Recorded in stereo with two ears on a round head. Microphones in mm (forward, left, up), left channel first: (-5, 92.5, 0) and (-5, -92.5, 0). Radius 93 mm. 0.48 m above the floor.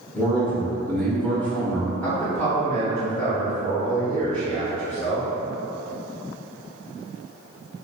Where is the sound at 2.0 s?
10° left (ahead or behind), 1.0 m.